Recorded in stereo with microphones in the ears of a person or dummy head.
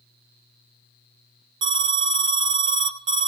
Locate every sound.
1.6 s an alarm: 25° right (ahead or behind), 0.7 m